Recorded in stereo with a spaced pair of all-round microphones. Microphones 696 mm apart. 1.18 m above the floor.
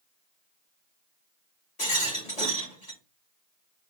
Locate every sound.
1.8 s a rattle: 55° left (ahead or behind), 3 m